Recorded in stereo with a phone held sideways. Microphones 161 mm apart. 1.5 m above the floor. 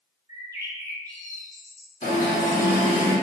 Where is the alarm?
50° left (ahead or behind), 1.2 m.